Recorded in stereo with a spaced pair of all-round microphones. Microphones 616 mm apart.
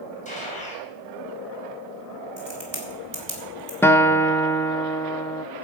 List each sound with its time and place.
0.2 s a gunshot: 10° left (ahead or behind), 4 m
2.4 s a crack: 65° right (ahead or behind), 3 m
3.8 s a guitar: 5° left (ahead or behind), 0.5 m